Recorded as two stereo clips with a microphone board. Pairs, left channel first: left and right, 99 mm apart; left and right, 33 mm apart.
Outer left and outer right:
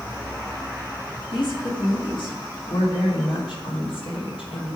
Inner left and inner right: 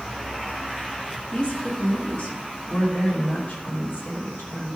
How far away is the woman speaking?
About 2.5 m.